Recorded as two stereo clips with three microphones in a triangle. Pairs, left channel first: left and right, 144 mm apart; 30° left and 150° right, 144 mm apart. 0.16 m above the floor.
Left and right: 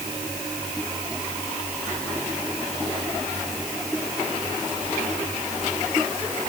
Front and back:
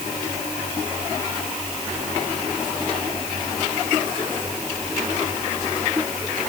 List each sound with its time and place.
Only background noise.